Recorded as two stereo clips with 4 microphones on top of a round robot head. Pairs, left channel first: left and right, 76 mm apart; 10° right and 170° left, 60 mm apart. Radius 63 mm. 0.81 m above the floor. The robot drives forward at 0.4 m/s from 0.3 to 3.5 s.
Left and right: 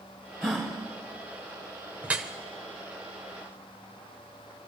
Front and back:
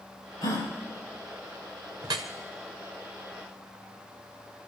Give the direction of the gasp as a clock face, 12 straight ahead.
12 o'clock.